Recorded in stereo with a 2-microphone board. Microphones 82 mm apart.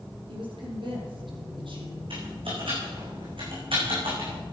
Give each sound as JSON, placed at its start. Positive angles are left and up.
{"t": 0.3, "sound": "a woman speaking", "side_deg": -70, "distance_m": 4.5}
{"t": 2.1, "sound": "typing on a keyboard", "side_deg": -80, "distance_m": 5.5}